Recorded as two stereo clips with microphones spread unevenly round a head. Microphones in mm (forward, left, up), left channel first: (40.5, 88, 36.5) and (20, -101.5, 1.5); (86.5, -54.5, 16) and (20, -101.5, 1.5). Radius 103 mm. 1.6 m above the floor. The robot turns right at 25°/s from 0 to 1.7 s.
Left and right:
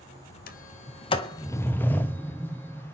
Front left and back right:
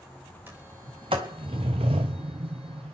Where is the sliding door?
135° left, 0.6 m; by 2.9 s 165° left, 0.6 m.